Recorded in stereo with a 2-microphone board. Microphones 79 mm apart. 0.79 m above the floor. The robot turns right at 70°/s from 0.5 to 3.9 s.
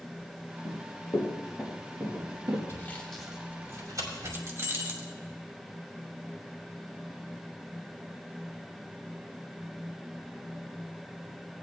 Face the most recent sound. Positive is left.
turn(degrees=-35)  # may be behind; listen again after turning